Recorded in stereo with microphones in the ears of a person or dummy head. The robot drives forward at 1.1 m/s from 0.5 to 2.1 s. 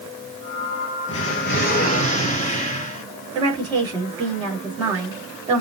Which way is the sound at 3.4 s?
20° right (ahead or behind).